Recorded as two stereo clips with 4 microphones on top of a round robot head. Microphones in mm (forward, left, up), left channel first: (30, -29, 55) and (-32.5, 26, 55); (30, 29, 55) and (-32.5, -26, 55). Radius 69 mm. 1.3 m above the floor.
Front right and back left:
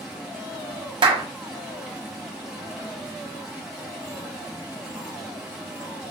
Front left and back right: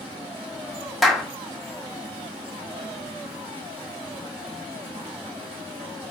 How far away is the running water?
About 1.3 m.